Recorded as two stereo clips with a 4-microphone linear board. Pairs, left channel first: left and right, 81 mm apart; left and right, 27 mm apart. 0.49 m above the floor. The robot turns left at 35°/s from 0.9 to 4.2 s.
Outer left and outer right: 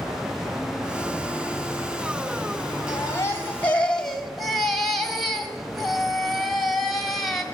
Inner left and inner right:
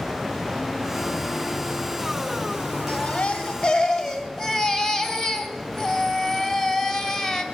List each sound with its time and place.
2.9 s a baby crying: 50° left, 2 m; by 7.4 s straight ahead, 2 m